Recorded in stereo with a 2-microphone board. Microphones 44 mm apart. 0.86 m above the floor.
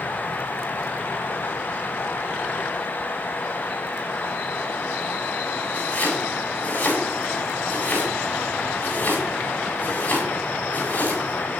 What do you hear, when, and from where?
5.7 s chopping: 45° left (ahead or behind), 7 m